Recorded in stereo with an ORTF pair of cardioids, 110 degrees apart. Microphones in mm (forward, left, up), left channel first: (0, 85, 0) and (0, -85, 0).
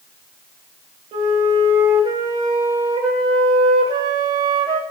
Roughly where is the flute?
Ahead right.